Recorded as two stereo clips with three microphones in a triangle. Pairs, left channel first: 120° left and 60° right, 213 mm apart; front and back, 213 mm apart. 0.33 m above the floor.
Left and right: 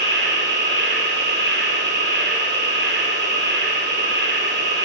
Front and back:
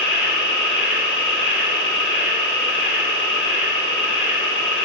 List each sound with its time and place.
0.0 s an insect: 25° right, 4 m